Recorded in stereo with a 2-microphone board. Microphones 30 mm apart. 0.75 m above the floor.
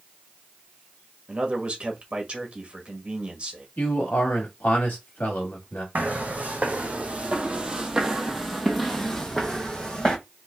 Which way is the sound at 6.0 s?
60° right (ahead or behind).